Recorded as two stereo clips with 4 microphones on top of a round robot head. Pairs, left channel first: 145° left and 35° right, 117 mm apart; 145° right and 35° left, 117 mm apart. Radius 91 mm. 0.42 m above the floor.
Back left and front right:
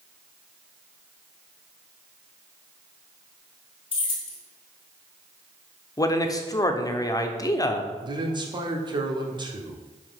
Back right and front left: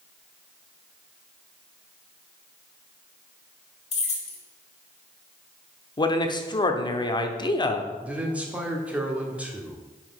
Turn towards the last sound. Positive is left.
turn(degrees=-40)